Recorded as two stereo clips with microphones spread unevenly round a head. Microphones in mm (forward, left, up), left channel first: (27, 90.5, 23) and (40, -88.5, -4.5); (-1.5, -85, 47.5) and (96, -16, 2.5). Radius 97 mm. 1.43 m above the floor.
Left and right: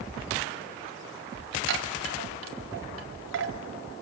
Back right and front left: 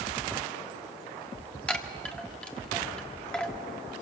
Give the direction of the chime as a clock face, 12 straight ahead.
2 o'clock.